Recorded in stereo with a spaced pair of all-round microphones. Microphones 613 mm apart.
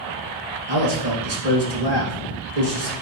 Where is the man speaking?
80° right, 2.5 m.